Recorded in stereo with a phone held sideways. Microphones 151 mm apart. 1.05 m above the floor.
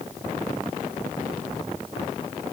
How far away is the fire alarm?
I don't hear a fire alarm.